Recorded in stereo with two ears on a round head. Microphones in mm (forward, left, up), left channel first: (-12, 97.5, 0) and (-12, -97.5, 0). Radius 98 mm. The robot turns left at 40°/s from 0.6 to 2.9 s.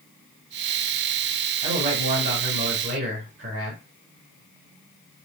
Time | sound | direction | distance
1.6 | a man speaking | 40° right | 1.4 m